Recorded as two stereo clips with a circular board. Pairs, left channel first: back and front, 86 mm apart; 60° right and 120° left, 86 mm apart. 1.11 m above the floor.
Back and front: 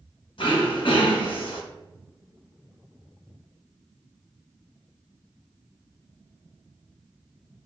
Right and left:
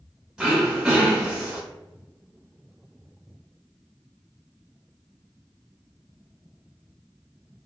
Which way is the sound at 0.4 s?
160° right.